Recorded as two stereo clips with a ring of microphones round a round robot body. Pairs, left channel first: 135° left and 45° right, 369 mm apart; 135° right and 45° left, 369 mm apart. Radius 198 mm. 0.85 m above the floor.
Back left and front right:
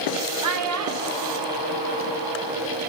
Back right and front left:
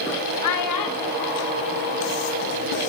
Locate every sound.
0.4 s a child speaking: 90° right, 2.5 m; by 2.8 s 110° right, 4.5 m